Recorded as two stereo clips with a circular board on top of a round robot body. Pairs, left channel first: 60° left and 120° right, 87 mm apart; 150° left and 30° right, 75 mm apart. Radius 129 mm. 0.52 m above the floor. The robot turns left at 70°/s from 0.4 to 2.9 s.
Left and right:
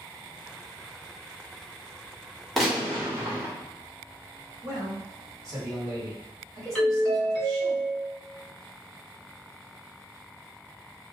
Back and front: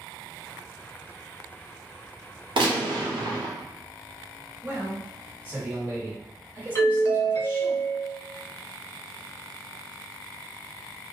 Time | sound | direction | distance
2.6 | a gunshot | 30° right | 0.8 m
4.6 | a man speaking | 80° right | 1.6 m
6.8 | a doorbell | 135° left | 1.4 m